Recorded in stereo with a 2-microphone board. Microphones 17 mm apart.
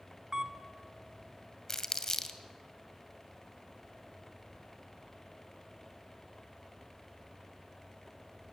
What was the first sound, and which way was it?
A camera shutter, 30° right (ahead or behind).